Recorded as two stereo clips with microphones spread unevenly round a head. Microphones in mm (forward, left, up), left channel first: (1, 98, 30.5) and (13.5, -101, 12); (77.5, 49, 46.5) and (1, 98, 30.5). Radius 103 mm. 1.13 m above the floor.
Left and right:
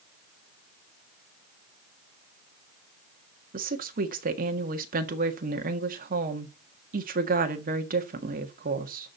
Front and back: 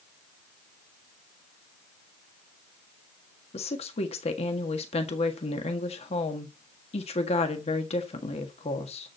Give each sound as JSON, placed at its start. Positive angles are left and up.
{"t": 3.5, "sound": "a woman speaking", "azimuth_deg": -35, "distance_m": 1.6}